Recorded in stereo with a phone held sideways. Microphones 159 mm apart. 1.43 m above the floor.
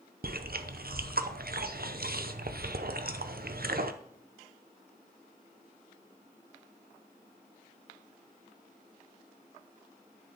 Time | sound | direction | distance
0.2 | chewing | 70° right (ahead or behind) | 0.6 m